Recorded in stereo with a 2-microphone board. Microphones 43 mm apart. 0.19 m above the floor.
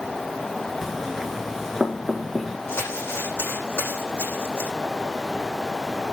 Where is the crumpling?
70° left (ahead or behind), 9.5 m.